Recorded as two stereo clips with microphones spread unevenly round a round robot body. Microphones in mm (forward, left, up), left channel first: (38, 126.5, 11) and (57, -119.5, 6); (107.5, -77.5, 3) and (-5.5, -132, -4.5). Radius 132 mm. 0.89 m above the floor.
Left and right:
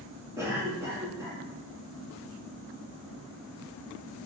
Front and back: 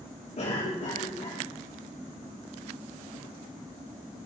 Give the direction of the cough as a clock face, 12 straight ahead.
12 o'clock.